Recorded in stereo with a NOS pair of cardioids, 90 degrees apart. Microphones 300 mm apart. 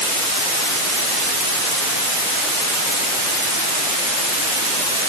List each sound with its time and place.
Only background noise.